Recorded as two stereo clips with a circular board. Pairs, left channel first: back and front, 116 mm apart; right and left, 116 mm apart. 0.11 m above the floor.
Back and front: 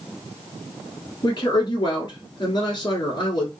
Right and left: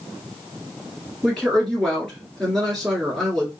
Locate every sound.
1.2 s a woman speaking: 175° right, 1.5 m